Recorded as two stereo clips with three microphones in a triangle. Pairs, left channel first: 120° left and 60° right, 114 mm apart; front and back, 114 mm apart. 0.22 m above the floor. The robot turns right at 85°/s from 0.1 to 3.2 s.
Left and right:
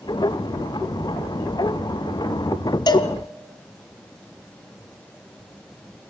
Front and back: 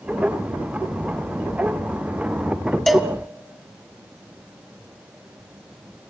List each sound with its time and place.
2.9 s a cowbell: 85° left, 1.8 m; by 3.1 s 110° left, 1.8 m